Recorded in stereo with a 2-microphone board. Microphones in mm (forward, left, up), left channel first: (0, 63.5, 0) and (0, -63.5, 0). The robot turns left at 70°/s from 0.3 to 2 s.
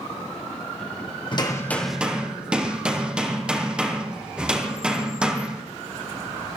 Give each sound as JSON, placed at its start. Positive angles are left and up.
{"t": 1.3, "sound": "hammering", "azimuth_deg": 40, "distance_m": 2.5}